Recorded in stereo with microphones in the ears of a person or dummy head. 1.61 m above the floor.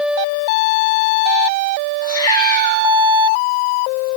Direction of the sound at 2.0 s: 20° left (ahead or behind).